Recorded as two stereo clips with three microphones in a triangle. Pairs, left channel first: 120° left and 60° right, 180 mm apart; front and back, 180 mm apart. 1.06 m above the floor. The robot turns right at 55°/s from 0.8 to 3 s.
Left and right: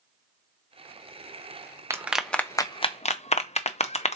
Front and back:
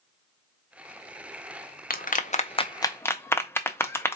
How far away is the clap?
About 0.6 m.